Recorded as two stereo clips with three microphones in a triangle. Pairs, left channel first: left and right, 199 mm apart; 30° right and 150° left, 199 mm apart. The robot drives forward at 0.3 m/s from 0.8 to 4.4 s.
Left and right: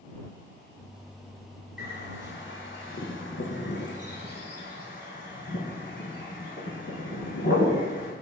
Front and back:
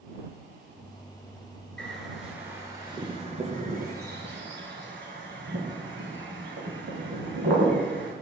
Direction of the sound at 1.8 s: 55° left.